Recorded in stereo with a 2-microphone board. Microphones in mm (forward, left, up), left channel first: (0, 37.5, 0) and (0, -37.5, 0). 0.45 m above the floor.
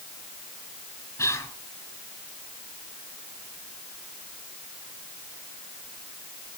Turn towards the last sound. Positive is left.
turn(degrees=40)  # may be behind; listen again after turning